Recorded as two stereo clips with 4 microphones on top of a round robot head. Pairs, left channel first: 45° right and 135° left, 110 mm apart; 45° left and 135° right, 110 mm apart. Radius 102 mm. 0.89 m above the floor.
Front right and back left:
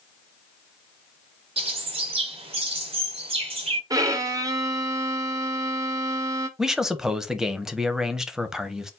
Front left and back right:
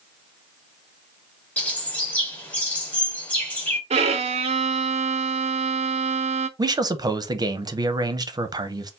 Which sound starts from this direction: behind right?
A man speaking, at 6.6 s.